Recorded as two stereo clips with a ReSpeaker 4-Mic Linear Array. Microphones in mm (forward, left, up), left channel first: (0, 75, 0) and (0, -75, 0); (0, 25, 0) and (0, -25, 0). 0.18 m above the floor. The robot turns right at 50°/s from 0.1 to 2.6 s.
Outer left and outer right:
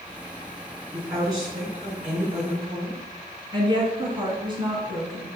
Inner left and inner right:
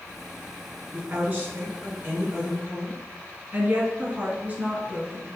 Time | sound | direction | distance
0.9 | a woman speaking | 145° right | 2 m
3.5 | a woman speaking | 30° right (ahead or behind) | 1.5 m